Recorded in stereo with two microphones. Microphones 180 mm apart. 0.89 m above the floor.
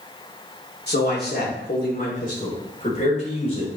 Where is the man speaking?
65° left (ahead or behind), 2.5 m; by 3.7 s 35° left (ahead or behind), 3.5 m.